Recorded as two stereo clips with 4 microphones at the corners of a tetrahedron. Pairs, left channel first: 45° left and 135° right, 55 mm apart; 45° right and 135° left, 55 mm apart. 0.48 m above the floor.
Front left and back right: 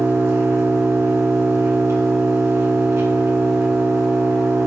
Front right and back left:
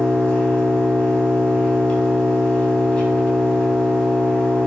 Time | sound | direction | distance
0.0 | an engine running | 115° right | 3.5 m